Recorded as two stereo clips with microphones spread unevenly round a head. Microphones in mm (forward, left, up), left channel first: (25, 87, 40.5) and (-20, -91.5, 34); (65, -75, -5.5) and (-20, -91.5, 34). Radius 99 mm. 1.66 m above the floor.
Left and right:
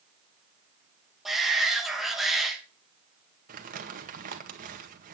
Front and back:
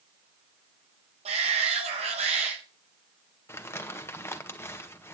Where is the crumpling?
55° right, 1.6 m.